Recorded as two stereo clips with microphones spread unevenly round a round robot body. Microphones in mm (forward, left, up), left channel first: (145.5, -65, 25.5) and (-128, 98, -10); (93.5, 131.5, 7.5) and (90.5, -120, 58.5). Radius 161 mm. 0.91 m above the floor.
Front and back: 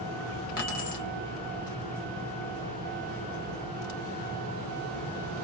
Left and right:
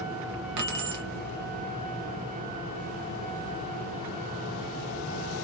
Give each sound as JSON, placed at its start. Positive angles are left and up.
{"t": 0.6, "sound": "keys jangling", "azimuth_deg": -85, "distance_m": 0.9}